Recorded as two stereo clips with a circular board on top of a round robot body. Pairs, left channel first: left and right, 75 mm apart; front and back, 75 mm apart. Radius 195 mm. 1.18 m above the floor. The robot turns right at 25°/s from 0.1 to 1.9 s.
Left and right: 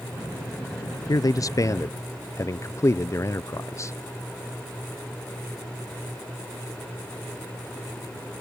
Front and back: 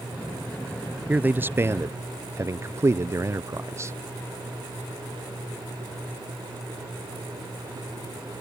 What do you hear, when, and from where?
1.1 s a man speaking: 115° left; by 4.0 s 135° left